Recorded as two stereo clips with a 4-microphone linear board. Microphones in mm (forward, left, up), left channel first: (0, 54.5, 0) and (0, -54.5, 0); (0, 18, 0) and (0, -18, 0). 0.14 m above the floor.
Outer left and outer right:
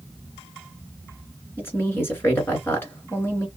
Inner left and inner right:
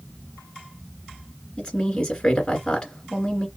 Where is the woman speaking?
20° left (ahead or behind), 2 m.